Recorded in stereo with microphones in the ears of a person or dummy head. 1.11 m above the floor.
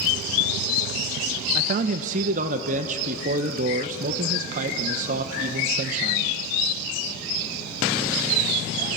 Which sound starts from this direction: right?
A man speaking, at 1.6 s.